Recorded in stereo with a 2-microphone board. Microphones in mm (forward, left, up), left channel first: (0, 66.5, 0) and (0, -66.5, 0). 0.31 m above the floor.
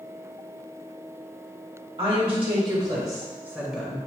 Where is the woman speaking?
45° right (ahead or behind), 1.4 m; by 4.0 s centre (ahead or behind), 1.0 m.